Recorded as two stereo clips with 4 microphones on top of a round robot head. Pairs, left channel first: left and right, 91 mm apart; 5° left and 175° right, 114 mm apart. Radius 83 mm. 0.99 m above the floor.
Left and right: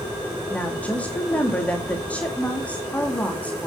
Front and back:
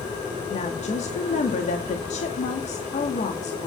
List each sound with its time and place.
0.5 s a woman speaking: 15° left, 2 m